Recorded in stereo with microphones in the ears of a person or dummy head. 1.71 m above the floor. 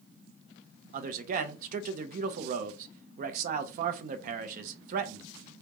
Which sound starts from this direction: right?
A man speaking, at 0.9 s.